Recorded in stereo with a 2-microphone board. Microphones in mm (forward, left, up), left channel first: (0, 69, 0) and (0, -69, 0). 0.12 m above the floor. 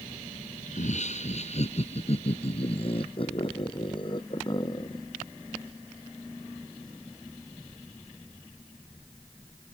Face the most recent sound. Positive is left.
turn(degrees=30)  # may be behind; listen again after turning